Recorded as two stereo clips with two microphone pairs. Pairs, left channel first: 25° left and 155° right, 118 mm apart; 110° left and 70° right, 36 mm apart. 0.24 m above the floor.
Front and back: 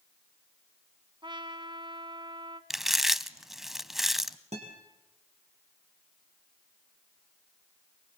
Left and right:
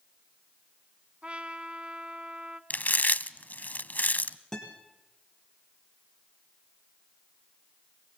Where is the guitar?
175° right, 4 m.